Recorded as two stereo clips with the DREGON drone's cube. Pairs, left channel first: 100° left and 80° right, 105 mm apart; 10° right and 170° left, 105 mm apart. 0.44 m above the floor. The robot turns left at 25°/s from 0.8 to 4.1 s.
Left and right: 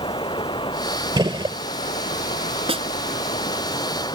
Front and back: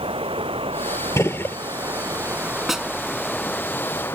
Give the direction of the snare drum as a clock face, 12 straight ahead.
3 o'clock.